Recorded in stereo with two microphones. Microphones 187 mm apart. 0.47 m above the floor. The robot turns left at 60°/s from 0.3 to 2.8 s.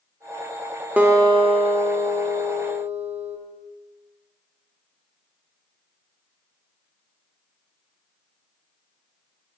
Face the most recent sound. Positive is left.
turn(degrees=-125)